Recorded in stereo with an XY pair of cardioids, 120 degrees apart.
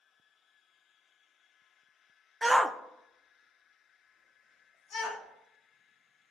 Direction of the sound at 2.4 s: 10° right.